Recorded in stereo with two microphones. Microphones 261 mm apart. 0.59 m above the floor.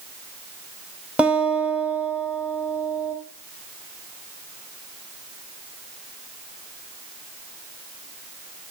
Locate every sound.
1.2 s a guitar: 5° right (ahead or behind), 1.2 m